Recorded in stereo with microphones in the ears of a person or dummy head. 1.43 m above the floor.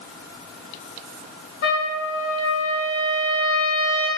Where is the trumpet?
70° left (ahead or behind), 1.3 m.